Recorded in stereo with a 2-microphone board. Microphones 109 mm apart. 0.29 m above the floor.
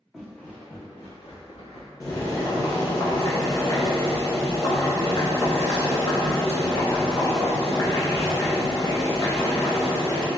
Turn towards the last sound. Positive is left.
turn(degrees=35)  # may be behind; listen again after turning